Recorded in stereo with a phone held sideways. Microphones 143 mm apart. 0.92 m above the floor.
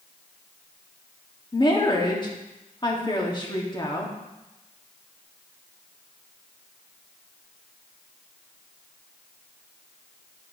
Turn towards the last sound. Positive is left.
turn(degrees=30)  # may be behind; listen again after turning